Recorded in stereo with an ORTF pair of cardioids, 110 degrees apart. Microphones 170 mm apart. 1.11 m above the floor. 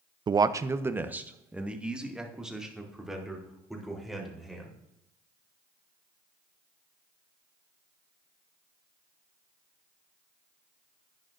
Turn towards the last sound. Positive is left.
turn(degrees=0)